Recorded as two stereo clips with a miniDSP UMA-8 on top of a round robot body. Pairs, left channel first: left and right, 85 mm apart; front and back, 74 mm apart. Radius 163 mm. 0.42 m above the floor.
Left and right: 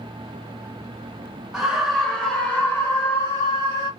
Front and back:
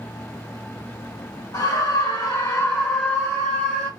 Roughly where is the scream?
Ahead.